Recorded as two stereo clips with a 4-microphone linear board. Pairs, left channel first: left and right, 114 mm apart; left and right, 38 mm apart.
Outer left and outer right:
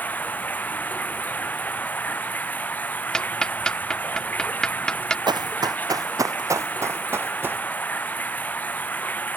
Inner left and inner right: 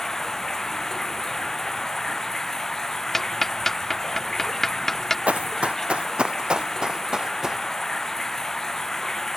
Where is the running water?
15° left (ahead or behind).